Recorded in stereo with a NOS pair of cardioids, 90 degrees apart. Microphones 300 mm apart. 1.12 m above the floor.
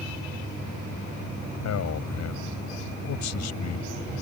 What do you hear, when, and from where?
1.6 s a man speaking: 60° left